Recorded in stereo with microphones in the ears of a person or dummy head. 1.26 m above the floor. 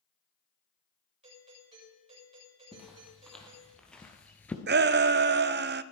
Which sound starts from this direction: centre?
Footsteps, at 2.7 s.